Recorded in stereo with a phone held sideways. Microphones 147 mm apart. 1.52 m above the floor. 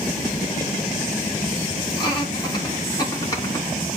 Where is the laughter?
30° left (ahead or behind), 6 m; by 3.7 s 20° left (ahead or behind), 5 m.